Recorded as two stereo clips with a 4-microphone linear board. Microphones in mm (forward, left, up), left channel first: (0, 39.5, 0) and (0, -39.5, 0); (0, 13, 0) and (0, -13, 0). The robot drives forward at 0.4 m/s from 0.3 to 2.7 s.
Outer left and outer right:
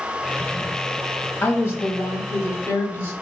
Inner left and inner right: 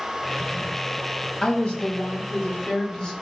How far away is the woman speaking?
About 1.1 m.